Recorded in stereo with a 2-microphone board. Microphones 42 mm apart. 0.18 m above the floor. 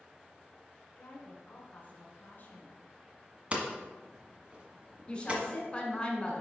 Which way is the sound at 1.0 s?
45° left (ahead or behind).